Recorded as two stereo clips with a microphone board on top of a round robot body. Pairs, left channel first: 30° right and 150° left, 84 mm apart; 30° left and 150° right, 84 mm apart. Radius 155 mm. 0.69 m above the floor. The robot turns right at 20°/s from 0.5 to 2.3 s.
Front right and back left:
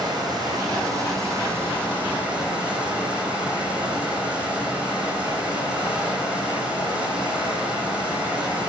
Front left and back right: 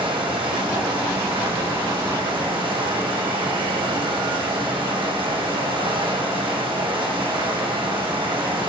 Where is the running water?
170° right, 4.5 m; by 8.7 s 135° right, 4.5 m.